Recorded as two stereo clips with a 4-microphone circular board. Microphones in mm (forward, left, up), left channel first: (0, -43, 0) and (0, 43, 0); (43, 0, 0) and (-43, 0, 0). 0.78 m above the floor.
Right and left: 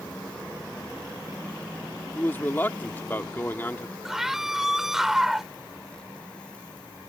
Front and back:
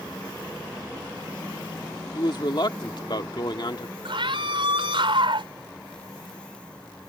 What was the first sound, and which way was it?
A man speaking, 25° right.